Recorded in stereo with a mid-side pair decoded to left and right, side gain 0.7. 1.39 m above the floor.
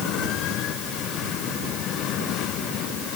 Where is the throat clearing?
No throat clearing in this recording.